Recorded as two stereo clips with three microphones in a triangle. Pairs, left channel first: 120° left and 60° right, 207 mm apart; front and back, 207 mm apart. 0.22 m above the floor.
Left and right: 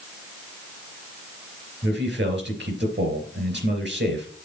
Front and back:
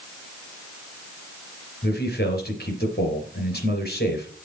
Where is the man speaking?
35° right, 3.5 m.